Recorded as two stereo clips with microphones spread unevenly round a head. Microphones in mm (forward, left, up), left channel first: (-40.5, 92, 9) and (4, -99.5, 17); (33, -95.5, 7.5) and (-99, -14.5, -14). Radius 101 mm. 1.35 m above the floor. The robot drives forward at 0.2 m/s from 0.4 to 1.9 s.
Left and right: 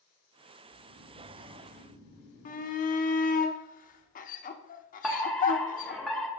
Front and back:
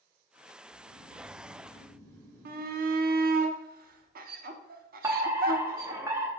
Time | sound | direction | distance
0.7 | snoring | 90° right | 1.9 m
2.5 | a shout | 145° left | 0.9 m
5.0 | a fire alarm | 170° right | 1.2 m